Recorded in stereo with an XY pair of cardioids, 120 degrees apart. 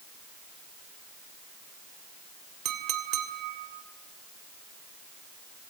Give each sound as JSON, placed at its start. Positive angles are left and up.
{"t": 2.6, "sound": "a clink", "azimuth_deg": -60, "distance_m": 2.5}